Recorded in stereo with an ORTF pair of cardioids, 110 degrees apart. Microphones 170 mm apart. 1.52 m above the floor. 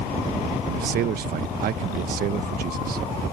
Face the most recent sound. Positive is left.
turn(degrees=-60)